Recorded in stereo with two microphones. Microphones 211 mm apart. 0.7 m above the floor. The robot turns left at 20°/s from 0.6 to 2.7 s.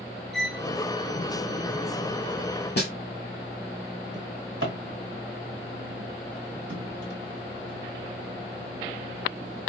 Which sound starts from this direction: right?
A drawer, at 4.1 s.